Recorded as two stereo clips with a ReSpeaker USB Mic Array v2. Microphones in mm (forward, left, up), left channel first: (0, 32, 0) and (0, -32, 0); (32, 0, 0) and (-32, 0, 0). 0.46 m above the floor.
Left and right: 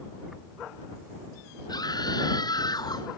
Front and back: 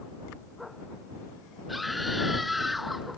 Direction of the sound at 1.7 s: 90° left.